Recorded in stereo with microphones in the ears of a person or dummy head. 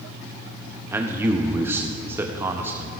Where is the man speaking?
10° right (ahead or behind), 0.6 m.